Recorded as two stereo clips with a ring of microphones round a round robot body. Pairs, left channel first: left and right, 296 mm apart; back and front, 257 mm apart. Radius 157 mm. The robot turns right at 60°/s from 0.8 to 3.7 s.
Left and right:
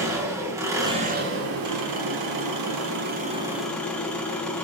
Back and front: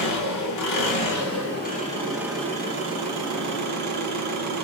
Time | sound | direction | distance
0.0 | an engine running | 170° right | 4 m